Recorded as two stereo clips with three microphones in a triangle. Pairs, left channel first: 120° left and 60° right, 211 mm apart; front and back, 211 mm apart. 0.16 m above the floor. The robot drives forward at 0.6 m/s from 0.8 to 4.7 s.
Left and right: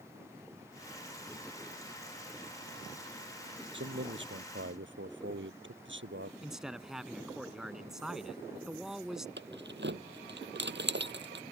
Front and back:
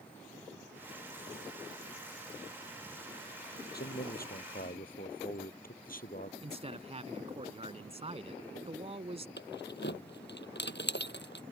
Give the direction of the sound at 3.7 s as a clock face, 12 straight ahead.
1 o'clock.